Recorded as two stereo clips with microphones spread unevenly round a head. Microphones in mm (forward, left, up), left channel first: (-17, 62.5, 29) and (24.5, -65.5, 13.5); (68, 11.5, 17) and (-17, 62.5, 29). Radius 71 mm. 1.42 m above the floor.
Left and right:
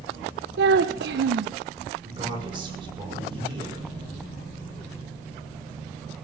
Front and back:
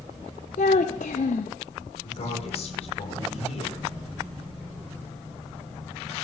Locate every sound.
0.6 s a child speaking: 70° right, 0.7 m
2.0 s a man speaking: 15° right, 6 m